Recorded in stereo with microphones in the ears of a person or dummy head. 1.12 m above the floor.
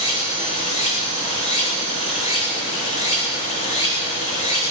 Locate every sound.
0.0 s running water: 40° left (ahead or behind), 3.5 m